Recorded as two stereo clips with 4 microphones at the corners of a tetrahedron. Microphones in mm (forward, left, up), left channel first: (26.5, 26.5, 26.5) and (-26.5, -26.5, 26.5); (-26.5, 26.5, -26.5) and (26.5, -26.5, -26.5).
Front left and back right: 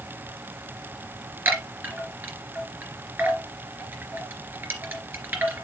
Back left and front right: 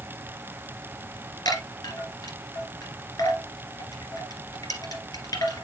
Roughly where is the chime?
Behind.